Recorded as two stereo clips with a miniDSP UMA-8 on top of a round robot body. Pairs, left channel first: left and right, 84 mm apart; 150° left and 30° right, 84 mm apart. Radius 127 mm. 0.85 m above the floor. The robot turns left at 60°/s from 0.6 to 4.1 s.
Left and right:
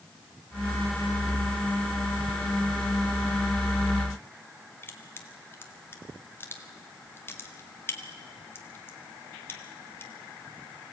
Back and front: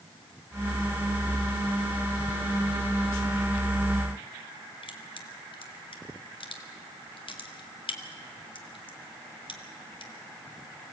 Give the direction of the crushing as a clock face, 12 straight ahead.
7 o'clock.